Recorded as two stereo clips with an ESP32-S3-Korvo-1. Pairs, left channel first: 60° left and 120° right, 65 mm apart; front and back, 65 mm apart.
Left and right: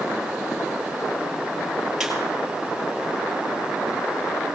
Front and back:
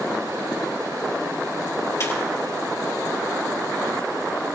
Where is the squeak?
35° right, 4 m.